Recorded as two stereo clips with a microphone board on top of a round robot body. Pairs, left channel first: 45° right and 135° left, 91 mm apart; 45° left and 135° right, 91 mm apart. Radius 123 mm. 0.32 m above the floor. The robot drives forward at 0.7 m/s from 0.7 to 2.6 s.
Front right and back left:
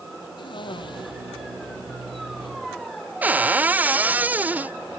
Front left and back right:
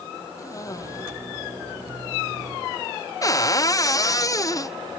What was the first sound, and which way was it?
A cough, 10° right.